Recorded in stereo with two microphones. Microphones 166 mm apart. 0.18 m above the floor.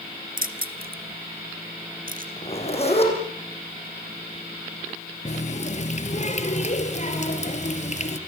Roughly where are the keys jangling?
Right.